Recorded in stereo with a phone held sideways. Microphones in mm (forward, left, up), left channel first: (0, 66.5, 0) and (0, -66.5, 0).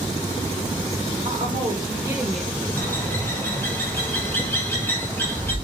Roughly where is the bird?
Centre.